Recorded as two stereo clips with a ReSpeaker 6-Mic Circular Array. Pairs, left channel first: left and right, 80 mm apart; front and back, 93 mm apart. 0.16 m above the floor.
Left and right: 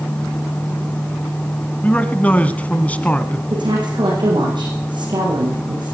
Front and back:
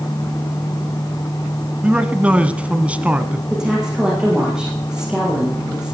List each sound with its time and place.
1.8 s a man speaking: 130° left, 1.4 m
3.5 s a woman speaking: 100° right, 8 m